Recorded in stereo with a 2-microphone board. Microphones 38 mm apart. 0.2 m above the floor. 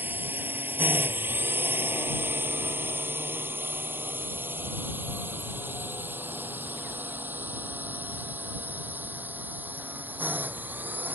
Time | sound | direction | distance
0.0 | a drone | 60° right (ahead or behind) | ?